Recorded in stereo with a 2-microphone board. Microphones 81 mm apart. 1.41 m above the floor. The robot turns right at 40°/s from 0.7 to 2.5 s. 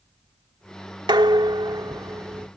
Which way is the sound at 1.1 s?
85° right.